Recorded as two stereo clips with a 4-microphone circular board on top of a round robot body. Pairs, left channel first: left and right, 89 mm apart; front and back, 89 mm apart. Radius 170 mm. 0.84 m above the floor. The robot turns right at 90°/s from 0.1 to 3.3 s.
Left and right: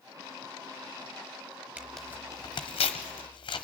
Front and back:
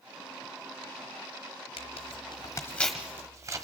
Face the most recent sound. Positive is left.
turn(degrees=125)